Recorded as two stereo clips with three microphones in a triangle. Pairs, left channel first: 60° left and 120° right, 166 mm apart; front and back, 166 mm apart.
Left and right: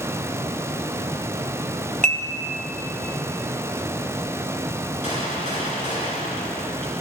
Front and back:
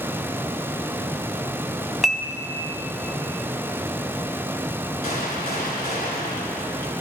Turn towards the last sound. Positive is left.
turn(degrees=20)